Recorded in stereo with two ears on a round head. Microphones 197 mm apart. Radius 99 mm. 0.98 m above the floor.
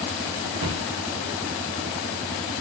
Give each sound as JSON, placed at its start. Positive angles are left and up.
{"t": 0.6, "sound": "a cupboard door", "side_deg": -70, "distance_m": 0.8}